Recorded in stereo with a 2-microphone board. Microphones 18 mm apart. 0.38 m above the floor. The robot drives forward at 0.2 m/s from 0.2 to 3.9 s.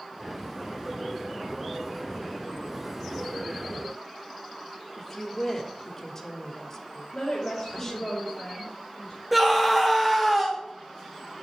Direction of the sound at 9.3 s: 5° right (ahead or behind).